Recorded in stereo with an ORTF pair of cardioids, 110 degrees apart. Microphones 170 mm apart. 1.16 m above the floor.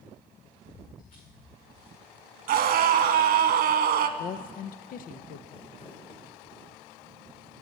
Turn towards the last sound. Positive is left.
turn(degrees=35)